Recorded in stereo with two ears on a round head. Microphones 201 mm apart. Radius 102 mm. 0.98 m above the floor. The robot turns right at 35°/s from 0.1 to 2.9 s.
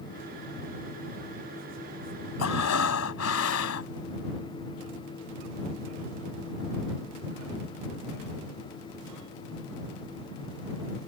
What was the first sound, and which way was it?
Breathing, 80° left.